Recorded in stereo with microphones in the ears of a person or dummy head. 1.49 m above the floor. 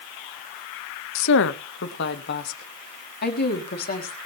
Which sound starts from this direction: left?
A woman speaking, at 1.1 s.